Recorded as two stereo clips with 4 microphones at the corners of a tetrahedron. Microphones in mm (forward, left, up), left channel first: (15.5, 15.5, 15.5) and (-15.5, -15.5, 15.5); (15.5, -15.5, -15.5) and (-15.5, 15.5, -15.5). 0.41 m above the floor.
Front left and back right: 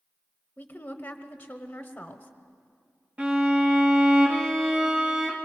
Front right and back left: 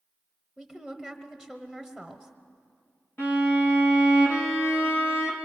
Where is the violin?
75° right, 3 m.